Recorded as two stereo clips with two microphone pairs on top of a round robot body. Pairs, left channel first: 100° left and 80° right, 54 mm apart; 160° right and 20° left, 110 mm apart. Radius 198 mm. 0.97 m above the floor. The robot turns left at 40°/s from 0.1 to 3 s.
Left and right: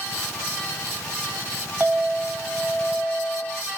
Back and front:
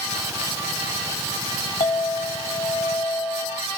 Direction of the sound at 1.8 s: 135° right.